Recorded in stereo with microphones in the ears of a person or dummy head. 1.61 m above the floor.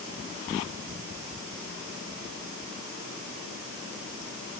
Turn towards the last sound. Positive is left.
No sound to turn to.